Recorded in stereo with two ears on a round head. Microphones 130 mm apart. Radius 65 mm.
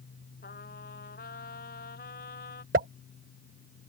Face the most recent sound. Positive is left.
turn(degrees=-60)  # may be behind; listen again after turning